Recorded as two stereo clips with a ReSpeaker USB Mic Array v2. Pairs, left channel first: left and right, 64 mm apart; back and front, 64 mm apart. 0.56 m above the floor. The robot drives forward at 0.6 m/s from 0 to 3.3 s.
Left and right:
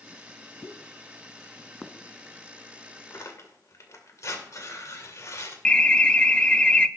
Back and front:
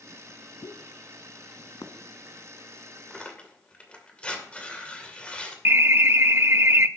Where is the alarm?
20° left, 0.6 m.